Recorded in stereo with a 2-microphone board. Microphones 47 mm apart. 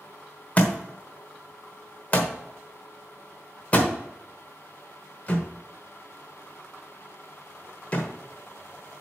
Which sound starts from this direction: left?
A thud, at 0.6 s.